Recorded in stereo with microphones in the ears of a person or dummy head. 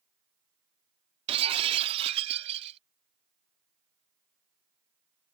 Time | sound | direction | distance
1.3 | breaking glass | 35° right (ahead or behind) | ?